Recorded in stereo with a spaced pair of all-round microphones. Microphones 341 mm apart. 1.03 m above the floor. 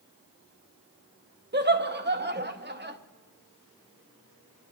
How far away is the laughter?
About 0.8 m.